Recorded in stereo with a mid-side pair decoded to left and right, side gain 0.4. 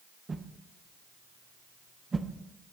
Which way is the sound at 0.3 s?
35° right.